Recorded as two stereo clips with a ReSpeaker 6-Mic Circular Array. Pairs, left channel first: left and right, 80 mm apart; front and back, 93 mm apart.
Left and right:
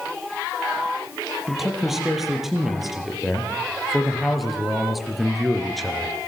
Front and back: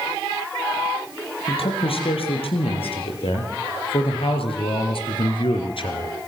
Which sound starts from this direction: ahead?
A man speaking, at 1.5 s.